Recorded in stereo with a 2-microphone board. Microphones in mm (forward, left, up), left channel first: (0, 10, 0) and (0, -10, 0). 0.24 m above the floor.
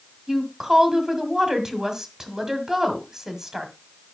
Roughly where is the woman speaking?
Right.